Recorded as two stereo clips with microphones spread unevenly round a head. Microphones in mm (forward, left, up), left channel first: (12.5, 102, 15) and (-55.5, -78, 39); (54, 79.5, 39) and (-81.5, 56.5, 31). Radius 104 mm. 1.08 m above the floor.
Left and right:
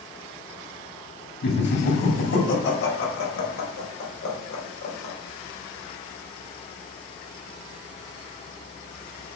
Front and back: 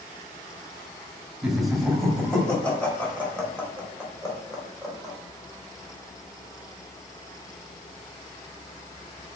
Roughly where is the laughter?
Left.